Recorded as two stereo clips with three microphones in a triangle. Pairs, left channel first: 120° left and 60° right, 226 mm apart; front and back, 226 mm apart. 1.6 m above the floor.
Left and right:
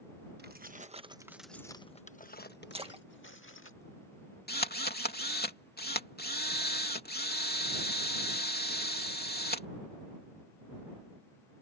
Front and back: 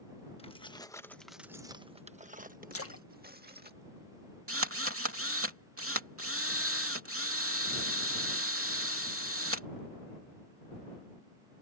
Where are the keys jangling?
50° right; by 3.7 s 140° left.